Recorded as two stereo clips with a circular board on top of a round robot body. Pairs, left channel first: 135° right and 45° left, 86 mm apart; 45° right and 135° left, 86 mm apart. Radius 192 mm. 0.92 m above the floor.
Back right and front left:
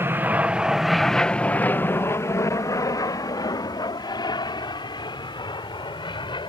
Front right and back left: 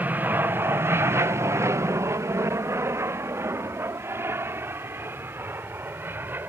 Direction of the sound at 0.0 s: 80° left.